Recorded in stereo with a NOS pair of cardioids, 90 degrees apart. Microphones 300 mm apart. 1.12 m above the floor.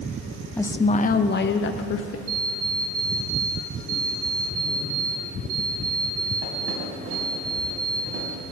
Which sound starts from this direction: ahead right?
An alarm clock, at 2.3 s.